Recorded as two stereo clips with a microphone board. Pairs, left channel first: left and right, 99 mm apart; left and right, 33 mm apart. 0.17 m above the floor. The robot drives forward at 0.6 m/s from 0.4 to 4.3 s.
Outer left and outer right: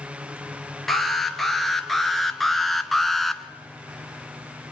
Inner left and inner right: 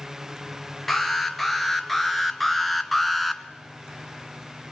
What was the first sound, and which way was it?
An alarm, centre (ahead or behind).